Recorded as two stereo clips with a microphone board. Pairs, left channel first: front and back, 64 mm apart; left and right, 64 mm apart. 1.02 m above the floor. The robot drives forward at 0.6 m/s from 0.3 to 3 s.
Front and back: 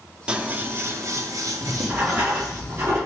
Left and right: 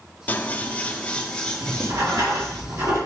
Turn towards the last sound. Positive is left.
turn(degrees=-130)